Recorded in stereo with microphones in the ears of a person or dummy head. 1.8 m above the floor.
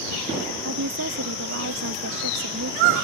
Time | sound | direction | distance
0.6 | a woman speaking | 60° right (ahead or behind) | ?